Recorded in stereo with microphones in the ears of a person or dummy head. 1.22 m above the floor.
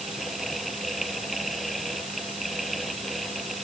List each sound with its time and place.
0.0 s a fan: centre (ahead or behind)